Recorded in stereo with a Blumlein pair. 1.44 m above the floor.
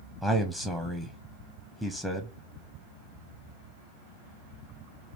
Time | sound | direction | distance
0.2 | a man speaking | straight ahead | 0.5 m